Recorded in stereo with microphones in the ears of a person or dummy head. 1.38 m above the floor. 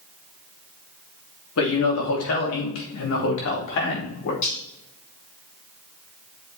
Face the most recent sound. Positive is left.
turn(degrees=45)  # may be behind; listen again after turning